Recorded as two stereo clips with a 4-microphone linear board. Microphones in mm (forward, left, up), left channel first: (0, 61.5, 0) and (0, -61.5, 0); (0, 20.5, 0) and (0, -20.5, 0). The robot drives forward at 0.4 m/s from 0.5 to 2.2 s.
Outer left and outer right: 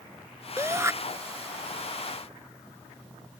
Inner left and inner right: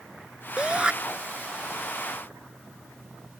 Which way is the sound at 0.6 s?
25° right (ahead or behind).